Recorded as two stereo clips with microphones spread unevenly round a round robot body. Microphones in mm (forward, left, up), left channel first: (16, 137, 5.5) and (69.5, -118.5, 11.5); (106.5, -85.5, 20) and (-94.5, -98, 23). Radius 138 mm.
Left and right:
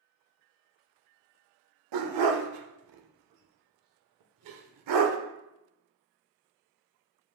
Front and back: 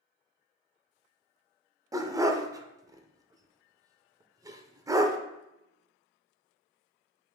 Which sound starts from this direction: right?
A dog barking, at 1.9 s.